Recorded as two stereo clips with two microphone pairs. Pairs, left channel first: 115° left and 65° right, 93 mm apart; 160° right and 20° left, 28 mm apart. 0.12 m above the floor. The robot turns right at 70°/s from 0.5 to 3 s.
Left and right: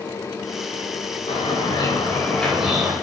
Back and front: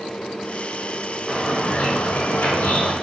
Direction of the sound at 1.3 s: 115° left.